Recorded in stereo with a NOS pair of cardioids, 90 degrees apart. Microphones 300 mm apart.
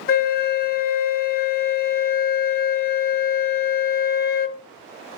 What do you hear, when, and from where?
0.1 s a flute: 35° left, 0.6 m